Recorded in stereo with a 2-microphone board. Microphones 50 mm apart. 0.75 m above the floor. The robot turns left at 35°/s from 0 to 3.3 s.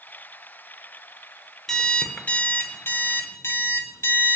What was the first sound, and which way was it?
An alarm clock, 170° left.